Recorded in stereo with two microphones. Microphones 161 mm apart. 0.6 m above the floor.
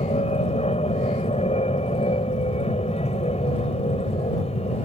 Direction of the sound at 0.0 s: 40° left (ahead or behind).